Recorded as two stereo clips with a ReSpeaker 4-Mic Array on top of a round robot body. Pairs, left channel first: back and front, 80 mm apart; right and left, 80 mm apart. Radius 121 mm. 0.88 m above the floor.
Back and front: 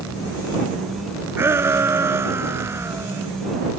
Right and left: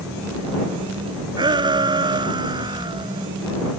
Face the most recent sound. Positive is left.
turn(degrees=60)